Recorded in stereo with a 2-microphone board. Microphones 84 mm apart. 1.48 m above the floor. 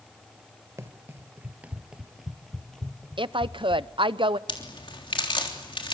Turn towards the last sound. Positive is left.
turn(degrees=90)